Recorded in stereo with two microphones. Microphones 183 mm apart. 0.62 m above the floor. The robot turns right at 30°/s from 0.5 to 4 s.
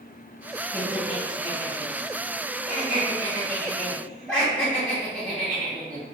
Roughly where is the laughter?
Left.